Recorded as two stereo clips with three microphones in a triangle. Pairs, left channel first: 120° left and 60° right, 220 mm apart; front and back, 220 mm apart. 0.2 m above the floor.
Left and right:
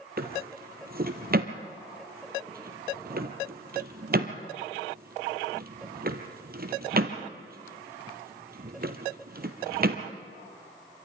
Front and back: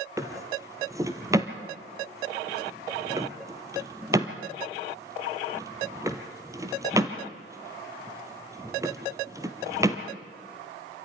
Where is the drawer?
105° right, 1.7 m.